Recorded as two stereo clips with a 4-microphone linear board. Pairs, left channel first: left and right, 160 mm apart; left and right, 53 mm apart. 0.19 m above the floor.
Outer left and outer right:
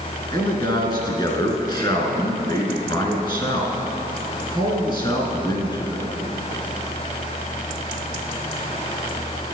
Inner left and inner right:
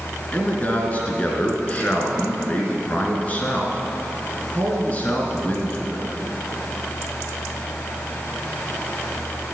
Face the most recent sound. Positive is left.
turn(degrees=30)  # may be behind; listen again after turning